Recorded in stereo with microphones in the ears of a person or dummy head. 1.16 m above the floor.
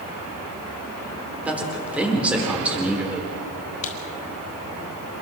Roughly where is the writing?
Left.